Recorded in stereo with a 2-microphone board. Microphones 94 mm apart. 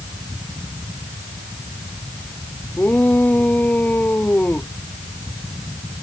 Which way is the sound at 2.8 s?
20° left (ahead or behind).